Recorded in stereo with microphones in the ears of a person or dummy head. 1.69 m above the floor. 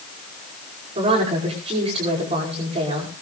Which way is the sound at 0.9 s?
30° right (ahead or behind).